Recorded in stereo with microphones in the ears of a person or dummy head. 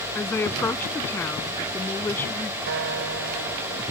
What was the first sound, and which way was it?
A woman speaking, 10° left (ahead or behind).